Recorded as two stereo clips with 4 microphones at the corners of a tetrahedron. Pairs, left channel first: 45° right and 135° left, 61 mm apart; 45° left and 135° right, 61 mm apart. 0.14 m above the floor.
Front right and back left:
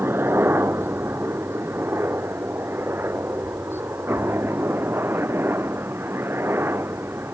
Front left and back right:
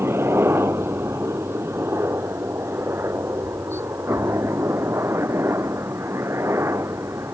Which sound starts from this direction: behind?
A helicopter, at 0.0 s.